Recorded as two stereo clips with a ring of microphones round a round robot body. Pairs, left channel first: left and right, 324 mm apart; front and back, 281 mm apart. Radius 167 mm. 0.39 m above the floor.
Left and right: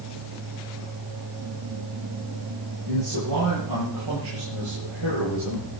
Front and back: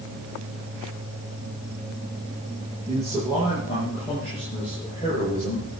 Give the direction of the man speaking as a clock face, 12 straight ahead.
3 o'clock.